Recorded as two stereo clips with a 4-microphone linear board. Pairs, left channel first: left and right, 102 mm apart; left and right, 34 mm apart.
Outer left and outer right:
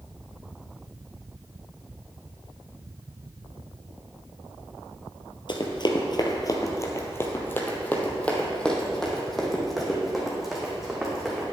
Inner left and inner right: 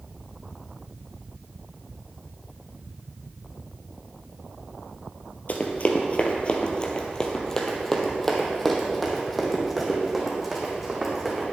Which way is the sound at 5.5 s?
55° left (ahead or behind).